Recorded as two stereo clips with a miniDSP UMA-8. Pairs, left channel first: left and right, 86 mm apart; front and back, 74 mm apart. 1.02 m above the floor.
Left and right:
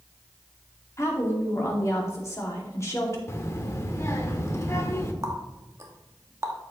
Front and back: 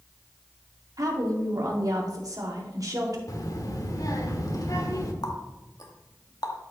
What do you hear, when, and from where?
1.0 s a woman speaking: 145° left, 2 m
3.3 s a child speaking: 35° left, 1.3 m
5.2 s a running tap: 35° right, 1.0 m